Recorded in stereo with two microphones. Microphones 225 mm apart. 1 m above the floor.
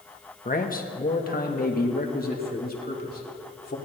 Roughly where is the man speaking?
Left.